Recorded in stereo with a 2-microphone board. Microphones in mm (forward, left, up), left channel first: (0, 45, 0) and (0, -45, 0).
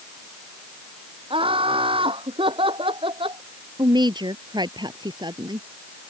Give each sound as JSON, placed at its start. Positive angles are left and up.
{"t": 1.3, "sound": "laughter", "side_deg": -85}
{"t": 3.8, "sound": "a woman speaking", "side_deg": -55}